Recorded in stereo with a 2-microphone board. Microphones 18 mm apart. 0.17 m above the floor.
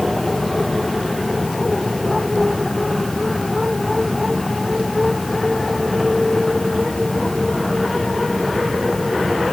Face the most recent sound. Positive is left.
No sound to turn to.